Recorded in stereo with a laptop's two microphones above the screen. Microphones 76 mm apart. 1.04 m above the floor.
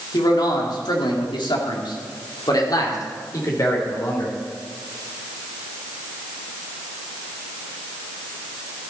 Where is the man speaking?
60° left (ahead or behind), 2 m; by 4.4 s 40° left (ahead or behind), 4 m.